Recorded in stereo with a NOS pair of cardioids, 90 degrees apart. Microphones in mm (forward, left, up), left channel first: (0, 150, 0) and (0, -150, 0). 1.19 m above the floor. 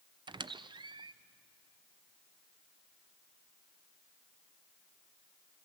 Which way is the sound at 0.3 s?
15° right.